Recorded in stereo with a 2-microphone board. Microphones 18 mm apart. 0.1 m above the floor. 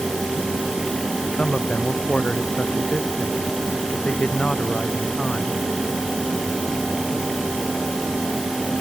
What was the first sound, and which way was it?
A man speaking, 80° left.